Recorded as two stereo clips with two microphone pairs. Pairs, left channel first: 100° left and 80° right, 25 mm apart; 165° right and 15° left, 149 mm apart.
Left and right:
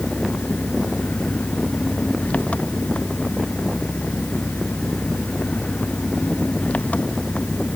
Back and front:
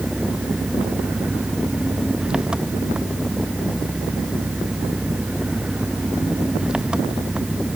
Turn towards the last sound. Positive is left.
turn(degrees=95)